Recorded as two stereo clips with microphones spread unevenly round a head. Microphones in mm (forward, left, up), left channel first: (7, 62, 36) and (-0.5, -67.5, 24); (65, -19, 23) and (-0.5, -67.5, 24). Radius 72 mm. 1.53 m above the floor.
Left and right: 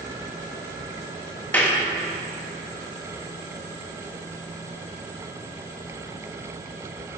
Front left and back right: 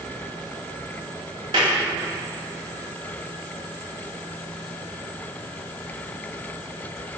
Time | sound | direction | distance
1.5 | a clap | 165° left | 2.5 m